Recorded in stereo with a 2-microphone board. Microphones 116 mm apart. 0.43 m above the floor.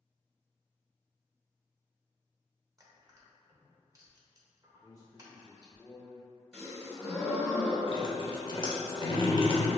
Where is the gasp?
5° left (ahead or behind), 1.8 m.